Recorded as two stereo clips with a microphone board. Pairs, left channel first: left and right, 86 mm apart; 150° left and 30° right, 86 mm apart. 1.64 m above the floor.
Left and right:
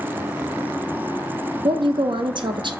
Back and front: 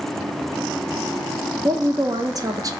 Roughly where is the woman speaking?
Right.